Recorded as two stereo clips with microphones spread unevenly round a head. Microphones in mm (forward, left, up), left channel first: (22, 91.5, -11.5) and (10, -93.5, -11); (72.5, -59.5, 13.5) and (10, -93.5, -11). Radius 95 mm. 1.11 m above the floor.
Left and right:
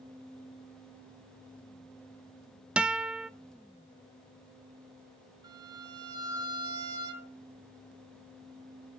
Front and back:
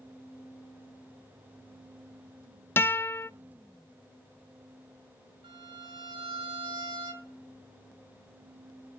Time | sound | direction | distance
2.8 | a guitar | 10° right | 0.7 m
5.4 | a violin | 165° right | 5.5 m